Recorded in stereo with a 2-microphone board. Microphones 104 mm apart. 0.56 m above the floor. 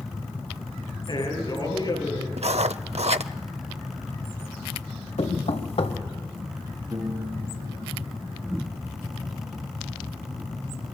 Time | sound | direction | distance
1.1 | a man speaking | 50° left (ahead or behind) | 9 m
2.4 | writing | 80° right | 0.6 m
5.2 | knocking | 75° left (ahead or behind) | 1.5 m
6.9 | a piano | 35° right (ahead or behind) | 6 m